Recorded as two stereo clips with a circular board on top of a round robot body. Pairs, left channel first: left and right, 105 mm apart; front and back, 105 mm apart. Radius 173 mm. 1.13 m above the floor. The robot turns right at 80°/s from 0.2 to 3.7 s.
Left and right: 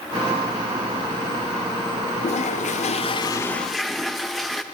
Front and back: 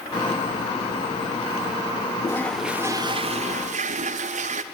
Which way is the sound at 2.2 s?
60° left.